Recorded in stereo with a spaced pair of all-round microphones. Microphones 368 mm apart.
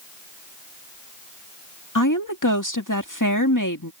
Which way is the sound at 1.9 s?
55° left (ahead or behind).